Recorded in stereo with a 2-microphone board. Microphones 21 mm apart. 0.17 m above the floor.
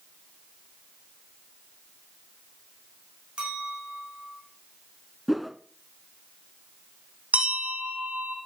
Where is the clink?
50° right (ahead or behind), 7.5 m.